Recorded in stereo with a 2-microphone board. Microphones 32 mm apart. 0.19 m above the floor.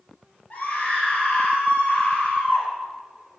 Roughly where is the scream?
Left.